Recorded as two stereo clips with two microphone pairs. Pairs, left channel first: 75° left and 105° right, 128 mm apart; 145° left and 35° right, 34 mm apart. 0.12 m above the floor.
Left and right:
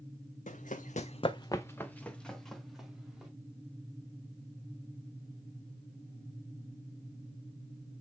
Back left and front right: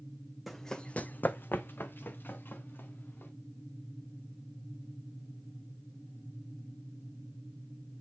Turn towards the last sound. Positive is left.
turn(degrees=170)